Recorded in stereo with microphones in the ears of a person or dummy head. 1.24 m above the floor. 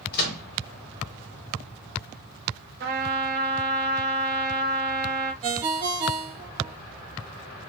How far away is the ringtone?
About 1.1 m.